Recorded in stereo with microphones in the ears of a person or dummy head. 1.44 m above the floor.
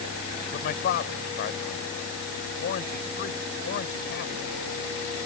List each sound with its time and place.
0.5 s a man speaking: 50° left (ahead or behind)